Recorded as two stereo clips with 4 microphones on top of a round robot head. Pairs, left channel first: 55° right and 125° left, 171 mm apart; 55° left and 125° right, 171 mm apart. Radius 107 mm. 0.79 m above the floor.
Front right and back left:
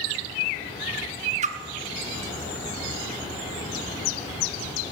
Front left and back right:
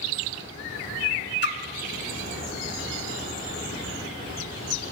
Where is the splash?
75° left, 1.1 m.